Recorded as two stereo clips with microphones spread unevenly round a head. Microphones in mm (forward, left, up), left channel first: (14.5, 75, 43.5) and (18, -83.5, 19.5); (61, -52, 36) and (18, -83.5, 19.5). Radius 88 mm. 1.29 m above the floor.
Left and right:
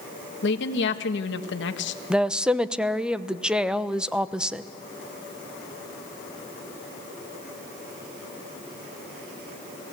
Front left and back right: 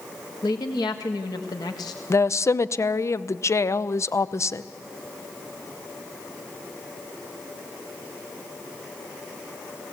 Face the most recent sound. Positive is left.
turn(degrees=-5)